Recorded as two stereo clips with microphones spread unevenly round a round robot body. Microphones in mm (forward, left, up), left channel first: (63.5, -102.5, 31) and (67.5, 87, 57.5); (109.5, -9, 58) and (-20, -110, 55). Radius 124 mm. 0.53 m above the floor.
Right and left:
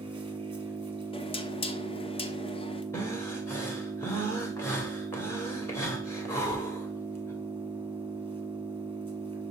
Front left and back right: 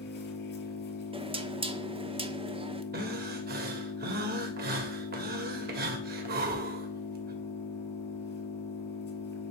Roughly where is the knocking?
Behind right.